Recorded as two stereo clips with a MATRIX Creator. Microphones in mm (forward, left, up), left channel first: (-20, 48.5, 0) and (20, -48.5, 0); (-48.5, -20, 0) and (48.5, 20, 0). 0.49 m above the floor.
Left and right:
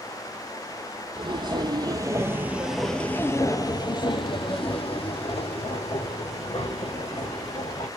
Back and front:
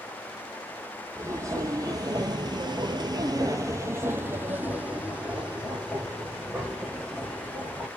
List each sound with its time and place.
1.1 s footsteps: 35° right, 1.1 m; by 7.9 s 110° left, 2.5 m